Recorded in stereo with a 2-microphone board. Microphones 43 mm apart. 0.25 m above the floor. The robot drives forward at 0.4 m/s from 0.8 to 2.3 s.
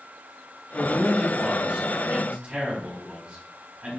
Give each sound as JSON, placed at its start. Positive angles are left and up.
{"t": 0.7, "sound": "a man speaking", "side_deg": -30, "distance_m": 1.1}